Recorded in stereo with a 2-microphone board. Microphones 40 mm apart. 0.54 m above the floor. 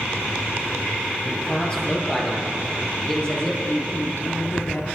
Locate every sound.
1.2 s a man speaking: 25° left (ahead or behind), 10 m
3.7 s a woman speaking: 65° left (ahead or behind), 6.5 m